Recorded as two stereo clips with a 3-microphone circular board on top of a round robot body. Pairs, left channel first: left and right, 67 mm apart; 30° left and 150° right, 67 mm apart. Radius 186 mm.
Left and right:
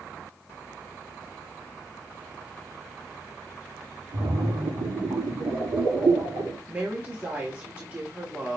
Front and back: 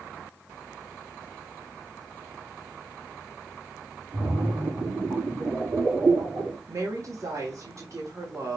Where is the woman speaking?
140° right, 1.5 m.